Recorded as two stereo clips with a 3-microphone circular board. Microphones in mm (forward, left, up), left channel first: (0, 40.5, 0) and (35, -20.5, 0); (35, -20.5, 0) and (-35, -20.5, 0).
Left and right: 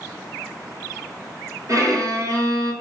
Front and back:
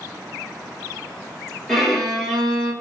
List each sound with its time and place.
1.7 s a violin: 85° right, 1.1 m